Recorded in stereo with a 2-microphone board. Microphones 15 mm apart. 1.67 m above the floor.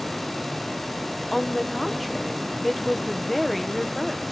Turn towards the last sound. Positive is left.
turn(degrees=10)  # may be behind; listen again after turning